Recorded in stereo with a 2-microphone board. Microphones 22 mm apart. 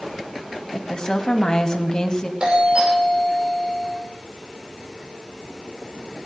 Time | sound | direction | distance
0.7 | a woman speaking | 30° left (ahead or behind) | 1.7 m
2.4 | a doorbell | 45° right (ahead or behind) | 7 m